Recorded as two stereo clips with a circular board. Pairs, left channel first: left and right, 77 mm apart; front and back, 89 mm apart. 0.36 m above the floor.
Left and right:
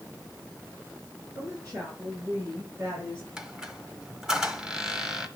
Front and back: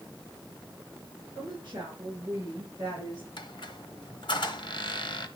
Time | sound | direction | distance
1.4 | a woman speaking | 140° right | 5.5 m
3.4 | a squeak | 10° right | 1.0 m